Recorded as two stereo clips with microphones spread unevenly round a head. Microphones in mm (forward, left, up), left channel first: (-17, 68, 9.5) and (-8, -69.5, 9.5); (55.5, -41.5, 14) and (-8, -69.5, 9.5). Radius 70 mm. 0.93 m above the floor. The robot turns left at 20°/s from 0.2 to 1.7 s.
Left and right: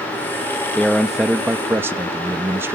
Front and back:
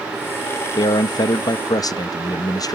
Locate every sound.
0.8 s a man speaking: 10° left, 0.7 m; by 2.8 s 10° right, 0.7 m